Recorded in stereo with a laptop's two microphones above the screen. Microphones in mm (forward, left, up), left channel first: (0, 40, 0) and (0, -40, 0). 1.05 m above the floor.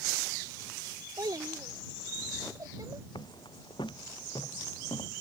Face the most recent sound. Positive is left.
turn(degrees=80)